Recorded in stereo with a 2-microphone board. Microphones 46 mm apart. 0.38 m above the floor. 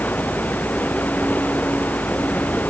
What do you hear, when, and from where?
0.0 s running water: 35° left (ahead or behind)